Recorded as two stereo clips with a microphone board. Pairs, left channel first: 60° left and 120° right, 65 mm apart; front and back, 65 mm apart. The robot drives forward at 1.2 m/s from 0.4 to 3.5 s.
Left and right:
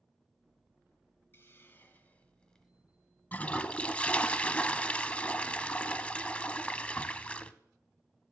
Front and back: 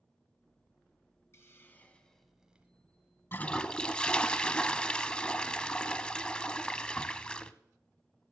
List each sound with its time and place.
1.3 s a hiss: 20° left, 1.7 m; by 2.7 s 135° left, 1.4 m
3.3 s a toilet flushing: 20° left, 0.6 m; by 7.5 s 40° left, 0.5 m